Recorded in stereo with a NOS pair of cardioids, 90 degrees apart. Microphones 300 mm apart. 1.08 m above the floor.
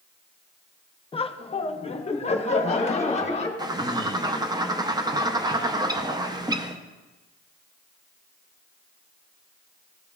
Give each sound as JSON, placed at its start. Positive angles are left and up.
{"t": 1.1, "sound": "laughter", "azimuth_deg": 20, "distance_m": 0.5}
{"t": 3.6, "sound": "a bird", "azimuth_deg": -15, "distance_m": 0.6}